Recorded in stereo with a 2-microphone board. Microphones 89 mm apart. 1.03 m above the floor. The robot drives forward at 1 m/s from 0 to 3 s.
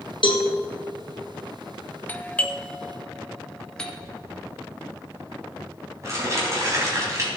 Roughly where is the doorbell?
Centre.